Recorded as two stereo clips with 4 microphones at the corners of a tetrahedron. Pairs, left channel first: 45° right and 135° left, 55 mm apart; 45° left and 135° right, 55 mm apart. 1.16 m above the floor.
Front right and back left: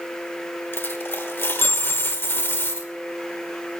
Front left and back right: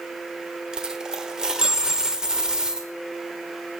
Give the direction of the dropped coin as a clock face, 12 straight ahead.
2 o'clock.